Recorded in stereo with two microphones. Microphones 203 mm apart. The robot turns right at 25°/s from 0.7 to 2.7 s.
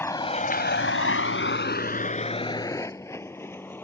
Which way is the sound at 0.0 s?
10° left (ahead or behind).